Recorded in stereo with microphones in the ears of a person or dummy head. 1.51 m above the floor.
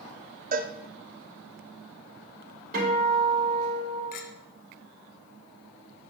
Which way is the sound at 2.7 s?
55° right (ahead or behind).